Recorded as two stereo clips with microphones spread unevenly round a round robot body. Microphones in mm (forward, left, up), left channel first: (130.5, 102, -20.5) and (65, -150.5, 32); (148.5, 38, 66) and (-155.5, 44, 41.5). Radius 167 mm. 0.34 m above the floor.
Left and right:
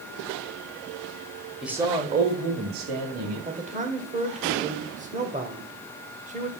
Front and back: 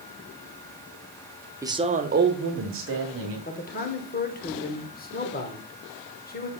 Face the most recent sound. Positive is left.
turn(degrees=-45)